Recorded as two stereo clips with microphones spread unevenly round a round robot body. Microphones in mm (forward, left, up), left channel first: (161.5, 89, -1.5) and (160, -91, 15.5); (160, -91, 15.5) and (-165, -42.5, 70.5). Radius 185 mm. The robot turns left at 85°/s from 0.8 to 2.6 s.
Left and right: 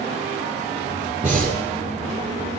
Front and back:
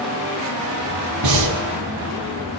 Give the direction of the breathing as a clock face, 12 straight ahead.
6 o'clock.